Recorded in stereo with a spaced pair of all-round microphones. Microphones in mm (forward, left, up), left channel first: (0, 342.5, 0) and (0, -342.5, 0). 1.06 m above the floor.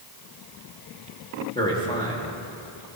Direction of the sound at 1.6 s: 10° left (ahead or behind).